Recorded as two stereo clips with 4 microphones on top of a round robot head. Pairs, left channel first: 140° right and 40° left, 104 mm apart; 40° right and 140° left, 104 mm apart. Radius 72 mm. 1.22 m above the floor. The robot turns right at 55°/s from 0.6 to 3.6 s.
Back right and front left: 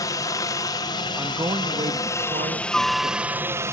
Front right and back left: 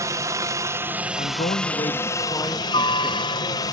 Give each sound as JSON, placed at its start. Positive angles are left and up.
{"t": 0.0, "sound": "a helicopter", "azimuth_deg": -175}
{"t": 1.2, "sound": "a man speaking", "azimuth_deg": -40}